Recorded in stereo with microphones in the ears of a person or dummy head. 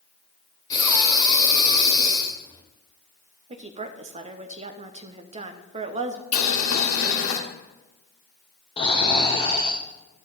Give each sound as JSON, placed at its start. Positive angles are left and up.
{"t": 0.7, "sound": "breathing", "side_deg": 20, "distance_m": 1.3}
{"t": 3.5, "sound": "a woman speaking", "side_deg": -30, "distance_m": 0.9}
{"t": 6.3, "sound": "boiling", "side_deg": 85, "distance_m": 1.5}
{"t": 8.8, "sound": "snoring", "side_deg": 30, "distance_m": 0.8}